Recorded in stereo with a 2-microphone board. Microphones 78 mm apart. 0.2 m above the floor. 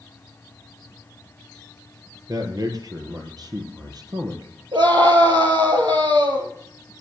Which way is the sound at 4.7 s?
75° right (ahead or behind).